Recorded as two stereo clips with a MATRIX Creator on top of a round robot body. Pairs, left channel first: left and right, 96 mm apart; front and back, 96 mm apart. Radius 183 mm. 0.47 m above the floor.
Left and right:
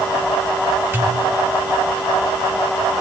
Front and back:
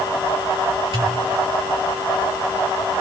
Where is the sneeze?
I don't hear a sneeze.